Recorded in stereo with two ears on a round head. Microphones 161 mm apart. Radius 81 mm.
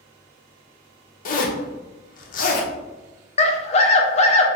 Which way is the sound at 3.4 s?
35° left (ahead or behind).